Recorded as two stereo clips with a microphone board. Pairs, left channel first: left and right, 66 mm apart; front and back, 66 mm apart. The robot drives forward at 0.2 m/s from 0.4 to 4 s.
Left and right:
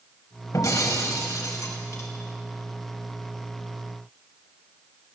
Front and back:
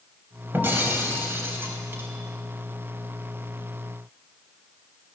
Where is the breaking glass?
120° left, 3.5 m; by 2.1 s 125° left, 3.5 m.